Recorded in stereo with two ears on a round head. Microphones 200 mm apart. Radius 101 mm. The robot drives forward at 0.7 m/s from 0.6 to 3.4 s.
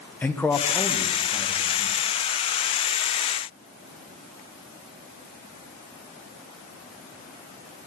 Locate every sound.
0.2 s a man speaking: 10° left (ahead or behind), 0.6 m; by 2.0 s 5° left (ahead or behind), 1.4 m